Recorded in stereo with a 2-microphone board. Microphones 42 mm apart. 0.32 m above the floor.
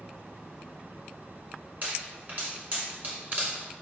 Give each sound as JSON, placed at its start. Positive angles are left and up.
{"t": 1.8, "sound": "a pop", "side_deg": -45, "distance_m": 1.5}